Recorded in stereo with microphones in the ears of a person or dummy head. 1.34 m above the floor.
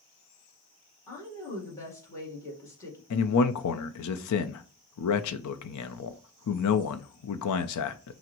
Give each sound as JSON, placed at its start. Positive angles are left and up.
{"t": 1.1, "sound": "a woman speaking", "side_deg": 15, "distance_m": 1.6}
{"t": 3.1, "sound": "a man speaking", "side_deg": 80, "distance_m": 0.6}